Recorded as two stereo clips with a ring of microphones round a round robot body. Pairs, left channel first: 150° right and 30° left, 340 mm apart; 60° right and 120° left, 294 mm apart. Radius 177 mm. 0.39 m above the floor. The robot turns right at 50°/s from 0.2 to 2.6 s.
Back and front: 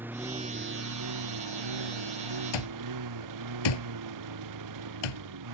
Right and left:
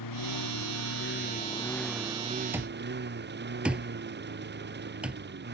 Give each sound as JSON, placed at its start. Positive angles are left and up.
{"t": 0.0, "sound": "a lawn mower", "azimuth_deg": -55}
{"t": 2.5, "sound": "an alarm clock", "azimuth_deg": -155}